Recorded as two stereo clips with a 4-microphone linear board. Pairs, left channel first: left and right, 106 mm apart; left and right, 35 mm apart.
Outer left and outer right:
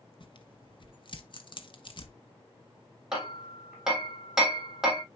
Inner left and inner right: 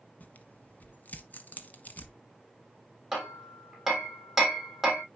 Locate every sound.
0.2 s tearing paper: 50° left (ahead or behind), 1.1 m
3.1 s hammering: 5° right (ahead or behind), 3.5 m